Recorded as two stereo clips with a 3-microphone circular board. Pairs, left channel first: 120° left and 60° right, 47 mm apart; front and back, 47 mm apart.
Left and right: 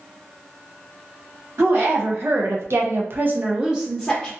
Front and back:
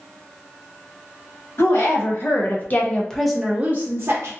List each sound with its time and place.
1.6 s a woman speaking: 25° right, 1.4 m; by 4.3 s 160° right, 0.8 m